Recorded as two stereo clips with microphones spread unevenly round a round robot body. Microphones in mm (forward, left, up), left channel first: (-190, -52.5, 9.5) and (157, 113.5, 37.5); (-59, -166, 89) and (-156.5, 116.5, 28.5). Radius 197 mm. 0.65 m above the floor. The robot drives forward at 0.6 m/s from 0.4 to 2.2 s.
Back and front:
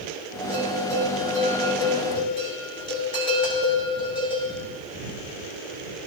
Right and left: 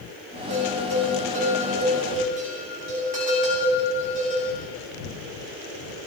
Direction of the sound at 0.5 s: 120° left.